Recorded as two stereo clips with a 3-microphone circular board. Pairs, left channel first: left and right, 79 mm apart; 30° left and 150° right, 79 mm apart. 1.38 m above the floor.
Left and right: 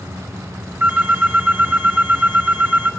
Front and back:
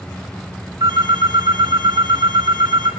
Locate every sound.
0.8 s a phone ringing: 155° right, 3 m